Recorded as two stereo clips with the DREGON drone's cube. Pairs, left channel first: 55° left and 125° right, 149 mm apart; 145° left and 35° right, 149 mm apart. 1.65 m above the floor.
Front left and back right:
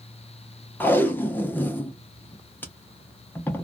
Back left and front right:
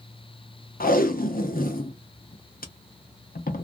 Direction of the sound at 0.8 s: 135° left.